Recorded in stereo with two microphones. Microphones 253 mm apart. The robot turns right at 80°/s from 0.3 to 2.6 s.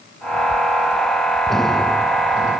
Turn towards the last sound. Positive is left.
No sound to turn to.